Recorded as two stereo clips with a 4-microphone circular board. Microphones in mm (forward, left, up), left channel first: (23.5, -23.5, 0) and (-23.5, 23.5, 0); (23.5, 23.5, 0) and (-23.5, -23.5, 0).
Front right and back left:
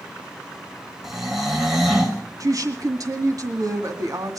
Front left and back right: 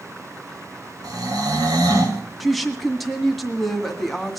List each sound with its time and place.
1.0 s snoring: 140° right, 3.5 m
2.4 s a woman speaking: 135° left, 2.0 m